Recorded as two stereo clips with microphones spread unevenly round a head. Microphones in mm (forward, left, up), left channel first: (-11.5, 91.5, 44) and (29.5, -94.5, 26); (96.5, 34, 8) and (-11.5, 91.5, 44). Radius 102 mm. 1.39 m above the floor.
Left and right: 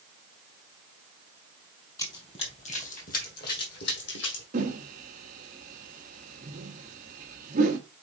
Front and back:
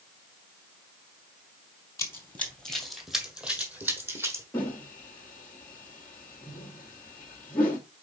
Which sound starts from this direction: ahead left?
Running footsteps, at 2.0 s.